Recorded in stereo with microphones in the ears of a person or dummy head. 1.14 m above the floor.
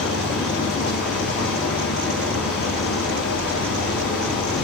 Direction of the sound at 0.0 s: 60° left (ahead or behind).